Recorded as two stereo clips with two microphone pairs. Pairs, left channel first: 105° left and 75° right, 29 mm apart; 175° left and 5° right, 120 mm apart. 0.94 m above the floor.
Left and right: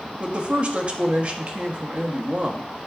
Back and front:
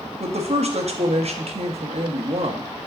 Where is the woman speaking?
30° right, 1.3 m.